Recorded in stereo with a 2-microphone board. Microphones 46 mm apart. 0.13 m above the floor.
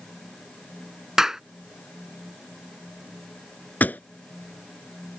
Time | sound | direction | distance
1.2 | a clap | 10° right (ahead or behind) | ?
3.8 | a pop | 40° left (ahead or behind) | ?